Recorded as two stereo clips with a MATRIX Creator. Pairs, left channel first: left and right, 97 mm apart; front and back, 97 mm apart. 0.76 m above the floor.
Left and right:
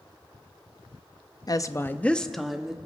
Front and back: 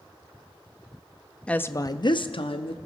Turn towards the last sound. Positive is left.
turn(degrees=-5)